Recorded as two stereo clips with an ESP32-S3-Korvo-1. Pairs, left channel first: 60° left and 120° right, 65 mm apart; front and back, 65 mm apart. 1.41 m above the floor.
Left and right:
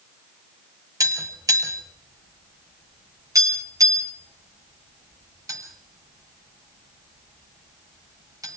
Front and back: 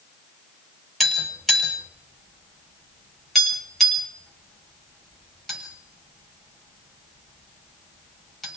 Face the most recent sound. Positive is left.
turn(degrees=-85)